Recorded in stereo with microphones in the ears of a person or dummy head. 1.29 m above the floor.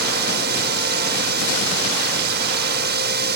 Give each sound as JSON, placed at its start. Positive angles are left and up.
{"t": 0.0, "sound": "a drone", "side_deg": -55}